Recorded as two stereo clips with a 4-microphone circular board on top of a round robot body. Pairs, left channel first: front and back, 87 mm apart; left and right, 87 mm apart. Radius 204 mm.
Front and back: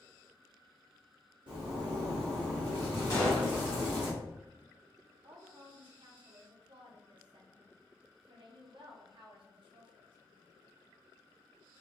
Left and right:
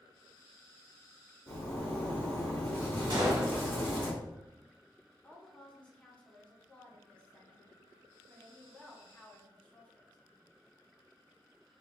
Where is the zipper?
155° left, 0.9 m.